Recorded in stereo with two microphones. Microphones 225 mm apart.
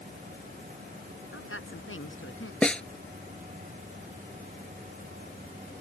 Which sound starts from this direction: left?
A woman speaking, at 1.3 s.